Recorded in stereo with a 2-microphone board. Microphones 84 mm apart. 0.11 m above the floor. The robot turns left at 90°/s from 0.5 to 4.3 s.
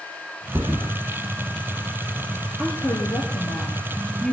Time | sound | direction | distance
0.5 | a thud | 35° right (ahead or behind) | 1.7 m
2.6 | a woman speaking | 165° left | 2.5 m